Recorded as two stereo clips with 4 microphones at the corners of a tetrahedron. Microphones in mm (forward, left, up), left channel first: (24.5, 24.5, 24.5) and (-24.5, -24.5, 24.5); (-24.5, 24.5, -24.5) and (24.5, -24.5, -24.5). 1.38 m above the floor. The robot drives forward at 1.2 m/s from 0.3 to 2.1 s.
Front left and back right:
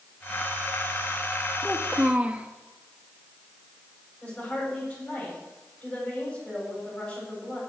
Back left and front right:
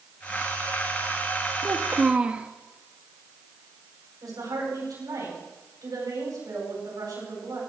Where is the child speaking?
35° right, 0.9 m; by 2.5 s 95° right, 0.8 m.